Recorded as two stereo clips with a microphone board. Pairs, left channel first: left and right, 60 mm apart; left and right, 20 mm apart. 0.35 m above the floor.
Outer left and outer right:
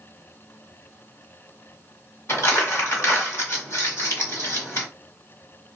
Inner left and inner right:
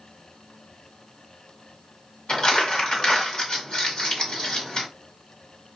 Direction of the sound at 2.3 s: 50° left (ahead or behind).